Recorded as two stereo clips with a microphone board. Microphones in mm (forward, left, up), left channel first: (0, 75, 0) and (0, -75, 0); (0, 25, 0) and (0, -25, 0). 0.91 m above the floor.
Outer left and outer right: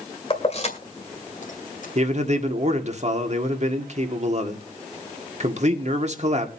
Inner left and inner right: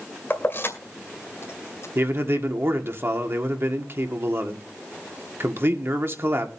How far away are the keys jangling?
About 2 m.